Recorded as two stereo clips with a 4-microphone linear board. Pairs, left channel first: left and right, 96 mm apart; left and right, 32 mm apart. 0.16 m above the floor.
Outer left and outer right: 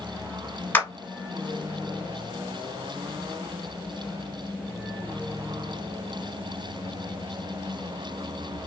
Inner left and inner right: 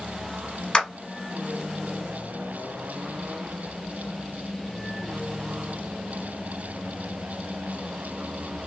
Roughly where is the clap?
Left.